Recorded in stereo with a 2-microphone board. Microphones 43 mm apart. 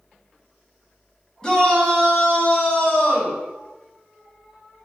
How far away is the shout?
About 1.3 m.